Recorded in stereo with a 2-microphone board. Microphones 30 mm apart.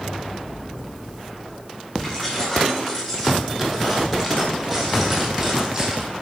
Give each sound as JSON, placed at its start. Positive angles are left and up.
{"t": 2.0, "sound": "keys jangling", "side_deg": 15, "distance_m": 4.5}